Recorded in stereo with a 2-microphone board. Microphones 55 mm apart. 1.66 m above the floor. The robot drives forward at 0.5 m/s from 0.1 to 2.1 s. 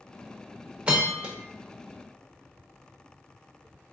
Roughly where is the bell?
Centre.